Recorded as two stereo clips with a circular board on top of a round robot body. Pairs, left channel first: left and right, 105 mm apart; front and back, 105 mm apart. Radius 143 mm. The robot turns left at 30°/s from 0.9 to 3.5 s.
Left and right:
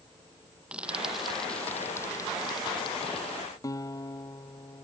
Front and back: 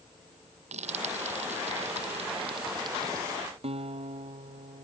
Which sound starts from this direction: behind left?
A guitar, at 3.6 s.